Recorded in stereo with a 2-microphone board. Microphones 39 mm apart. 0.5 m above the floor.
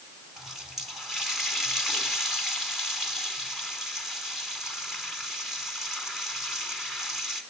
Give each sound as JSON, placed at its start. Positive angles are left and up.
{"t": 0.4, "sound": "a running tap", "side_deg": -5, "distance_m": 3.0}